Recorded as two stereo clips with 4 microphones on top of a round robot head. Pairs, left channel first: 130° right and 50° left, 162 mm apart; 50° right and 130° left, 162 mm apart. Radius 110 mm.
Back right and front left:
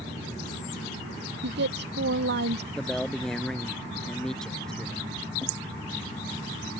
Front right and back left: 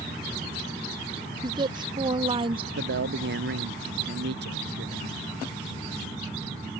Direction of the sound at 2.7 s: 145° left.